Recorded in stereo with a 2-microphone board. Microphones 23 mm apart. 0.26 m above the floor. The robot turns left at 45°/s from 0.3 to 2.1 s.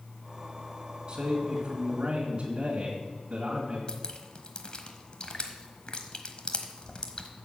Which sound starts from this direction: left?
Dripping, at 3.9 s.